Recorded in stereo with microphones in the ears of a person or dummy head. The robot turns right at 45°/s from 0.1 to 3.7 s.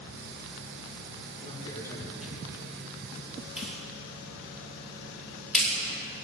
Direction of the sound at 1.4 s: 145° left.